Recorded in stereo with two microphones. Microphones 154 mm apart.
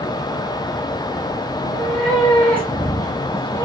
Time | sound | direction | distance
1.6 | a cat meowing | 5° left (ahead or behind) | 2.5 m